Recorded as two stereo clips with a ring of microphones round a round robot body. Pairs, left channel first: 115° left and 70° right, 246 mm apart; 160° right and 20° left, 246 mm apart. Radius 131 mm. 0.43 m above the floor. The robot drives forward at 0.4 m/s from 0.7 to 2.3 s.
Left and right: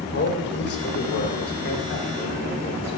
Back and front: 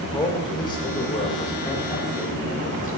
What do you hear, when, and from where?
0.1 s a man speaking: 135° left, 1.6 m; by 3.0 s 150° left, 2 m